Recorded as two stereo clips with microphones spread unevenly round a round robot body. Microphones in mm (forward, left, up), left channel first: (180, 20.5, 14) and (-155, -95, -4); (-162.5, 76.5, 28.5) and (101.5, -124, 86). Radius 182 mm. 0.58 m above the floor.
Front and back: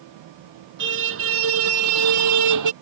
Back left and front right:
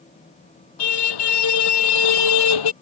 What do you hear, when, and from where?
0.8 s a car horn: 140° left; by 2.7 s 155° left